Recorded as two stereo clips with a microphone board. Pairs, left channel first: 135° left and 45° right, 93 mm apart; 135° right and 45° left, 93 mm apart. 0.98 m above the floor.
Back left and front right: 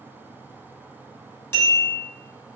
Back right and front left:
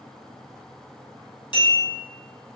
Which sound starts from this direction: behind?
A bell, at 1.5 s.